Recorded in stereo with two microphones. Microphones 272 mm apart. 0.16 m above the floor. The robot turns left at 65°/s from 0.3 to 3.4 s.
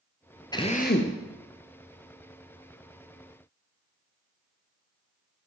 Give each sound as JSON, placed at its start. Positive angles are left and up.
{"t": 0.5, "sound": "a drill", "azimuth_deg": 165, "distance_m": 1.1}